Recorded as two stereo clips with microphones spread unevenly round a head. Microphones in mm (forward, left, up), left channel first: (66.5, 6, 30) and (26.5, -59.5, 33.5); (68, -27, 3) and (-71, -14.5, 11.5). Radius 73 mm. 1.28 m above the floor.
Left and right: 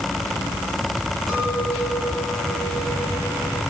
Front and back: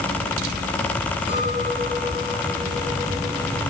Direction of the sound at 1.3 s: 30° right.